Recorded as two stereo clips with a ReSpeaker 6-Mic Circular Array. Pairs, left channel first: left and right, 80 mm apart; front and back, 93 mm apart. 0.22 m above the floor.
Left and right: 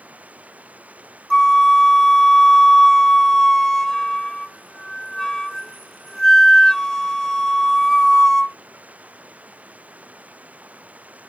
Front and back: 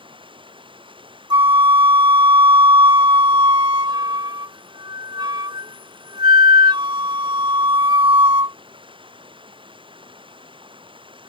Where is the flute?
170° left.